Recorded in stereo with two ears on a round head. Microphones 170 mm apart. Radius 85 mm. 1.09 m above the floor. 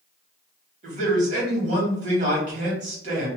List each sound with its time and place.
0.8 s a man speaking: 40° right (ahead or behind), 1.5 m